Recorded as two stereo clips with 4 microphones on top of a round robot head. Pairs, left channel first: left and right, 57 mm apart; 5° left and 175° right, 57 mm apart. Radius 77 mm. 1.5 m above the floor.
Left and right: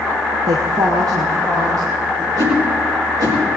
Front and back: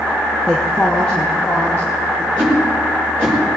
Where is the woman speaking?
75° right, 1.2 m; by 2.3 s 70° right, 3.5 m.